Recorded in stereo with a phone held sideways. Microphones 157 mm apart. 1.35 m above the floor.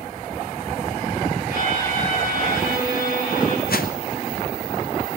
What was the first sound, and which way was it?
A violin, 65° left (ahead or behind).